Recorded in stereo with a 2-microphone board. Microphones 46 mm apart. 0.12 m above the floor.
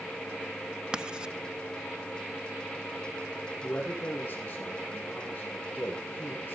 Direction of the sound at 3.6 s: 35° left (ahead or behind).